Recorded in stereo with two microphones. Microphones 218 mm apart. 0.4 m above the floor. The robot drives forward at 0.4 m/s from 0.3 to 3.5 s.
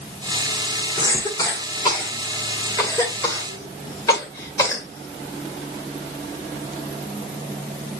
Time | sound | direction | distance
1.0 | a cough | 20° left (ahead or behind) | 1.3 m